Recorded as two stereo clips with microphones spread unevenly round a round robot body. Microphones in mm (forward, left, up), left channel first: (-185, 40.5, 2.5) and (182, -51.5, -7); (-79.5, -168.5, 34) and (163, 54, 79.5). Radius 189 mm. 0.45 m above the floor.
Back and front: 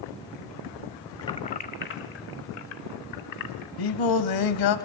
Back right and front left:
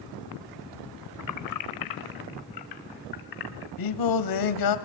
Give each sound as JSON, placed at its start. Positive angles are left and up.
{"t": 1.2, "sound": "keys jangling", "azimuth_deg": -115, "distance_m": 1.2}
{"t": 3.8, "sound": "singing", "azimuth_deg": -160, "distance_m": 1.4}